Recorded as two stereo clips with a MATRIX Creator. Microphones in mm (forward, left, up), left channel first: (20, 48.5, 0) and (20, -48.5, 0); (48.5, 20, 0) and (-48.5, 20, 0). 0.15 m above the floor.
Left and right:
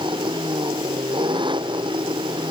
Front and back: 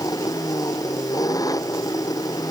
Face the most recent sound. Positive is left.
turn(degrees=-55)